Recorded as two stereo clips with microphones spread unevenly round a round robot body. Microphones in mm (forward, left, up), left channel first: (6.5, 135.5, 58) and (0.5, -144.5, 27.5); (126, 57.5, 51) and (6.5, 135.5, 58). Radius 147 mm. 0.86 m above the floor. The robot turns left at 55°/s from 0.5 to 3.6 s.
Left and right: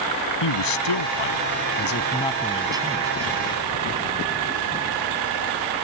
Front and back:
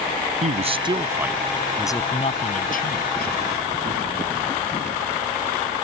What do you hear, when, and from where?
0.4 s a man speaking: 110° left; by 3.4 s 50° right